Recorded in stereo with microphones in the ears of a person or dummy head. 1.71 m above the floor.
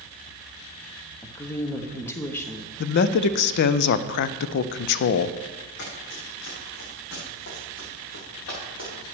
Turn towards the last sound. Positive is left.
turn(degrees=70)  # may be behind; listen again after turning